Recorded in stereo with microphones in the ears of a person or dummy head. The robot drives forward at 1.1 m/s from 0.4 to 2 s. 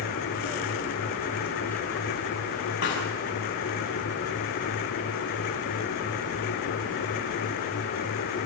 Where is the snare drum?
75° left (ahead or behind), 5.5 m.